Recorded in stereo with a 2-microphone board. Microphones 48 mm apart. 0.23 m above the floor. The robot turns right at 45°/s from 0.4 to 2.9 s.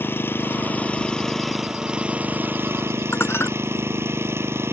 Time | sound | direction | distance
0.0 | an engine running | 130° left | ?
3.1 | dishes clattering | 60° left (ahead or behind) | ?